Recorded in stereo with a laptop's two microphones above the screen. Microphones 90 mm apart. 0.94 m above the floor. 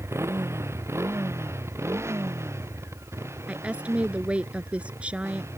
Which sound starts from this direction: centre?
A woman speaking, at 3.5 s.